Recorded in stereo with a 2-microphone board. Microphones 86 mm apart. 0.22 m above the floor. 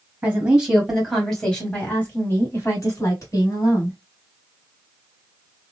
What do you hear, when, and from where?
0.2 s a woman speaking: 15° right (ahead or behind), 1.5 m; by 4.0 s 50° left (ahead or behind), 2 m